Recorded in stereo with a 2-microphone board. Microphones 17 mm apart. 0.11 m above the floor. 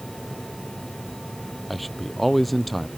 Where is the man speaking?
5° left (ahead or behind).